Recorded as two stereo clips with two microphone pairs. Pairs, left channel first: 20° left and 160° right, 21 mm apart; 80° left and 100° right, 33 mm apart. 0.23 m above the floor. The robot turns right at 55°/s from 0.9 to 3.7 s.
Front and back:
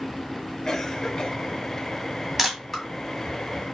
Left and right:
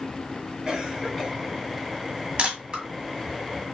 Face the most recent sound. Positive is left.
turn(degrees=-25)